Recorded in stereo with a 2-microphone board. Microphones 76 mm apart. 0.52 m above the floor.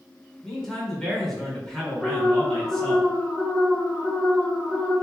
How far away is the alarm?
About 1.5 m.